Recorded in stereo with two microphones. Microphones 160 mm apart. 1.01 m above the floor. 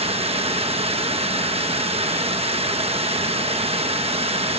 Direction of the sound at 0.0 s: 40° right (ahead or behind).